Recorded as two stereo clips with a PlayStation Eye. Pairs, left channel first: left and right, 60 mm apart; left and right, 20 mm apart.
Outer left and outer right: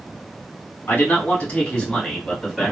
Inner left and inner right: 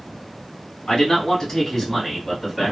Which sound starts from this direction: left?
A man speaking, at 0.9 s.